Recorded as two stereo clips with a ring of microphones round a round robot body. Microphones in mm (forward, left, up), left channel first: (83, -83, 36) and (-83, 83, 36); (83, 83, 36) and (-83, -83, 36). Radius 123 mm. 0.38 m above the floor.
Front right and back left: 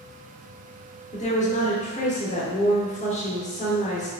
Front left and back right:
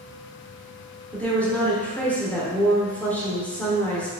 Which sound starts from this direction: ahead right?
A woman speaking, at 1.1 s.